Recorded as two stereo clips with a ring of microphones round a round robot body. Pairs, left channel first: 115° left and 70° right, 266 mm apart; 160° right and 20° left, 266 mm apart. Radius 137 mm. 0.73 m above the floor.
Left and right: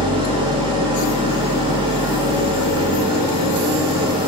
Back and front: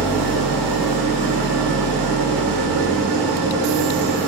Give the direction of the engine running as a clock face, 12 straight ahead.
12 o'clock.